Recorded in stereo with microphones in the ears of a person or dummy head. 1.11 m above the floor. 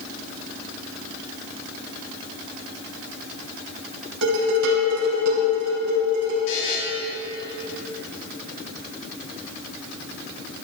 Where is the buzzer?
75° left (ahead or behind), 3.5 m.